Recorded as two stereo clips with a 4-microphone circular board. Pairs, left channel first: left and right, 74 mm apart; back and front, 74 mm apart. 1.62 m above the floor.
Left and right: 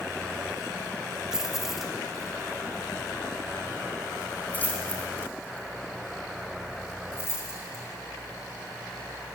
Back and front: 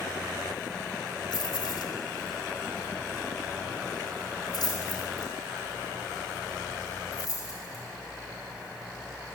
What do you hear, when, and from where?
1.3 s keys jangling: 175° right, 3 m; by 7.8 s 140° left, 6 m